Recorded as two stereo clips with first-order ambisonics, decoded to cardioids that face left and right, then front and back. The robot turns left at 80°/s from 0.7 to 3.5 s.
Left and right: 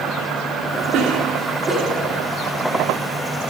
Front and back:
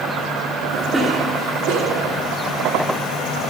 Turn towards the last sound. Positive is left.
turn(degrees=60)